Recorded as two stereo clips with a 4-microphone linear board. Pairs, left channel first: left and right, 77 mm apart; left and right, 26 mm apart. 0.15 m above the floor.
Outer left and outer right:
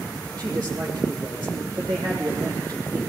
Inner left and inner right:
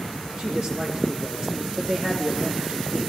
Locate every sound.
0.4 s a man speaking: 50° right (ahead or behind), 6 m